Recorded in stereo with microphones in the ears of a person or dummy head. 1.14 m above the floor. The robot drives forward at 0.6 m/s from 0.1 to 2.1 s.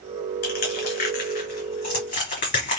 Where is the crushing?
50° left (ahead or behind), 2.5 m; by 2.8 s 35° left (ahead or behind), 3.5 m.